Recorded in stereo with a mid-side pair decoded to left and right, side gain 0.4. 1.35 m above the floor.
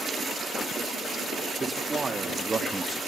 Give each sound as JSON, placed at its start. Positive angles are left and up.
{"t": 1.6, "sound": "a man speaking", "azimuth_deg": -35, "distance_m": 3.0}